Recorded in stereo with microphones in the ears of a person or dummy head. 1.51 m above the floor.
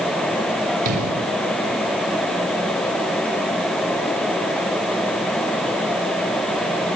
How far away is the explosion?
About 5.5 m.